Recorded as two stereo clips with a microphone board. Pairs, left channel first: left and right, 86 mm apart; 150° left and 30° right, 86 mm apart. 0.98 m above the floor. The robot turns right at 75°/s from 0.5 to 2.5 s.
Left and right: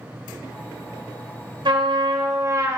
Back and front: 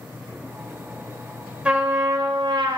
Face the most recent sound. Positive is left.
turn(degrees=-45)